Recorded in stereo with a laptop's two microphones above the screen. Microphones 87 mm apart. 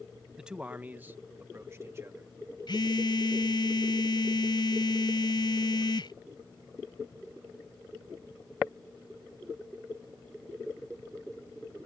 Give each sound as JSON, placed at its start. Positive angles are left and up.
{"t": 0.4, "sound": "a man speaking", "side_deg": -5}
{"t": 2.7, "sound": "a phone buzzing", "side_deg": 60}